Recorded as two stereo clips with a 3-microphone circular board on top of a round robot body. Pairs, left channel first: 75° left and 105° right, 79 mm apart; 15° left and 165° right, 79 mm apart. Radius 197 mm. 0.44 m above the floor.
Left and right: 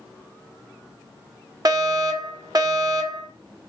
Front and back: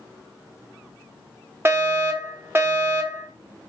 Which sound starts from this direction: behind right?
A fire alarm, at 1.6 s.